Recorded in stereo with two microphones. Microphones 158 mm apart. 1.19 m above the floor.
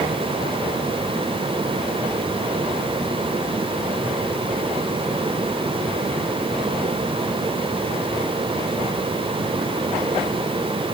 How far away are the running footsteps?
I don't hear running footsteps.